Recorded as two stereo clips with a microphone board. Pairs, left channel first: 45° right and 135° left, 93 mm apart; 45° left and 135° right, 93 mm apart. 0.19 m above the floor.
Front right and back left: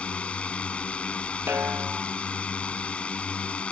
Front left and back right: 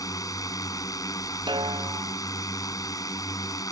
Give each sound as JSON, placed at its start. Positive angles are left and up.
{"t": 0.0, "sound": "a drone", "azimuth_deg": 25}
{"t": 1.5, "sound": "a snare drum", "azimuth_deg": -160}